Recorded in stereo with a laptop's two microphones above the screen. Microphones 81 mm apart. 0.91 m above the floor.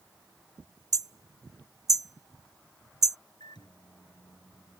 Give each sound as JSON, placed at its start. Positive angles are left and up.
{"t": 0.9, "sound": "hammering", "side_deg": -50}
{"t": 3.4, "sound": "a microwave", "side_deg": 80}